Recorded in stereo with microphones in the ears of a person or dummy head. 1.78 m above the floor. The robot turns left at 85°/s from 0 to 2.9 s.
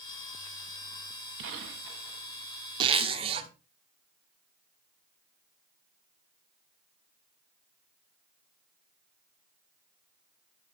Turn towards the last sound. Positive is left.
turn(degrees=-30)  # may be behind; listen again after turning